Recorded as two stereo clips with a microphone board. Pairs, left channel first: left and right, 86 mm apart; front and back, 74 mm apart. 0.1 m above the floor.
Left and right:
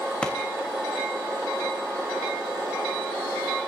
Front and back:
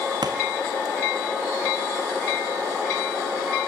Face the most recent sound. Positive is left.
turn(degrees=165)